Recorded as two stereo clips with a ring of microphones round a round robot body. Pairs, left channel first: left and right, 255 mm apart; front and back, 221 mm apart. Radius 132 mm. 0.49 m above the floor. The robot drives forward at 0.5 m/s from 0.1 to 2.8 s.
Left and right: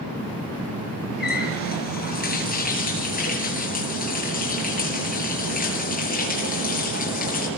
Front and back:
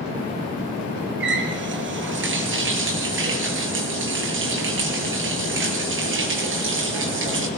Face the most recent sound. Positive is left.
turn(degrees=150)